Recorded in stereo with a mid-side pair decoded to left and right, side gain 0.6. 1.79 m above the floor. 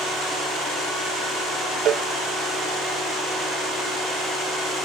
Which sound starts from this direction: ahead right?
A cowbell, at 1.9 s.